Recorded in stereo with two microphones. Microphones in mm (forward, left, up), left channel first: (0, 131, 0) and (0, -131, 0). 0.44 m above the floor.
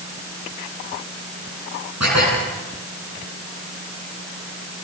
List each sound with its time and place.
2.0 s dishes clattering: 85° right, 9.5 m